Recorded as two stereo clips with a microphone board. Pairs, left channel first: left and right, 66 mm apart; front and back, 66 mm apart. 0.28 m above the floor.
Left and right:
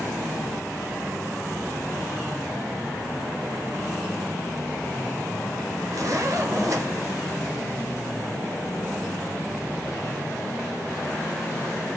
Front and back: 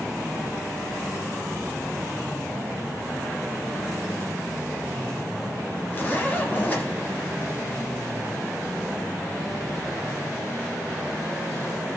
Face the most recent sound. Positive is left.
turn(degrees=-60)